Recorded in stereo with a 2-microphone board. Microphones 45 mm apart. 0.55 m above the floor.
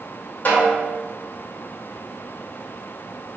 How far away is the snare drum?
About 1.6 m.